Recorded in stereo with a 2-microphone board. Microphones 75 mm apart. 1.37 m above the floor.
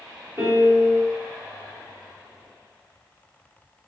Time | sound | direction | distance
0.4 | a piano | 25° right (ahead or behind) | 1.0 m